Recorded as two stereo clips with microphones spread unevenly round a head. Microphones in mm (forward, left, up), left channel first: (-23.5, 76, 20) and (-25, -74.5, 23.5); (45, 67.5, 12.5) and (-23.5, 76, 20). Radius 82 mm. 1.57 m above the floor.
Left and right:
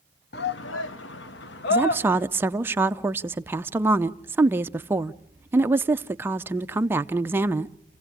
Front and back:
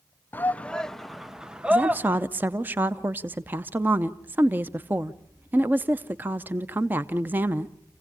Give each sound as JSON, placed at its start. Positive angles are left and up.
{"t": 0.3, "sound": "a shout", "azimuth_deg": 60, "distance_m": 0.9}
{"t": 1.7, "sound": "a woman speaking", "azimuth_deg": -155, "distance_m": 0.5}